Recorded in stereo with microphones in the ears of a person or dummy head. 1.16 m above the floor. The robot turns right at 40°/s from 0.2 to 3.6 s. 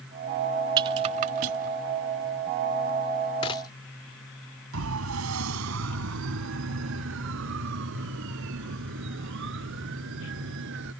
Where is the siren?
85° right; by 10.9 s 70° right (ahead or behind).